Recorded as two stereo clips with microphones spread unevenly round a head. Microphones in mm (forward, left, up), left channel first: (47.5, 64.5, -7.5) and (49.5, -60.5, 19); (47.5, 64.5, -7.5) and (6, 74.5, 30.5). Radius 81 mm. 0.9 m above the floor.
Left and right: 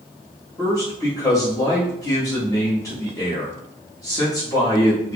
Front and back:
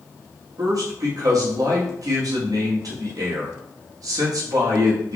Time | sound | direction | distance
0.6 | a man speaking | 150° left | 1.3 m